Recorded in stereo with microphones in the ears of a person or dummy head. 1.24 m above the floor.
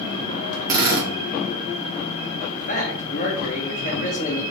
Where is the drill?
25° right (ahead or behind), 1.4 m.